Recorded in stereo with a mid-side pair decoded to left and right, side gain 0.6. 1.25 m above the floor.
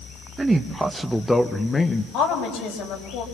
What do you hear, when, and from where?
0.4 s a man speaking: 20° right, 1.5 m; by 2.0 s 30° left, 1.2 m
2.1 s a woman speaking: 70° left, 6.5 m